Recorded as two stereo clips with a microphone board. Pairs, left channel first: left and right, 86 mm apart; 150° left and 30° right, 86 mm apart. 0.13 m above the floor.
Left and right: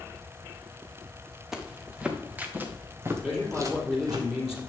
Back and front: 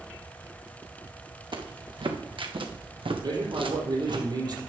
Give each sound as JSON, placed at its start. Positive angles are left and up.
{"t": 1.5, "sound": "footsteps", "azimuth_deg": -5, "distance_m": 2.0}
{"t": 3.2, "sound": "a man speaking", "azimuth_deg": -10, "distance_m": 4.0}